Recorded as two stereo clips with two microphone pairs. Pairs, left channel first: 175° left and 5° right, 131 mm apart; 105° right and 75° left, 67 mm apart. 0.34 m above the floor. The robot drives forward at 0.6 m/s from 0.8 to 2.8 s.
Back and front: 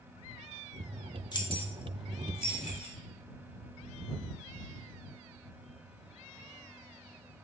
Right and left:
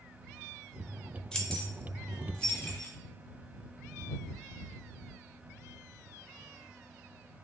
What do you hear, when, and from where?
1.3 s keys jangling: 170° right, 0.6 m; by 3.0 s 175° right, 1.3 m